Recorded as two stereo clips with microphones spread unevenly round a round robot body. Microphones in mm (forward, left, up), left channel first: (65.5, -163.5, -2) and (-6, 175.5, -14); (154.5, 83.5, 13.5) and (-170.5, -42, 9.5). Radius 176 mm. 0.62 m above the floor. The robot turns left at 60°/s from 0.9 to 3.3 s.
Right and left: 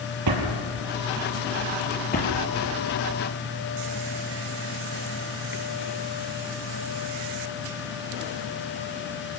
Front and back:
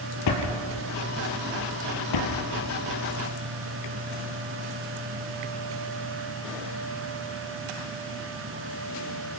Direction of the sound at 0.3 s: 60° left.